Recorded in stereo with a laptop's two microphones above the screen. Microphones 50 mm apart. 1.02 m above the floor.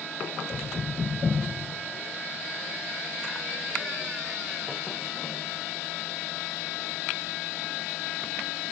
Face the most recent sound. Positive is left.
turn(degrees=-50)  # may be behind; listen again after turning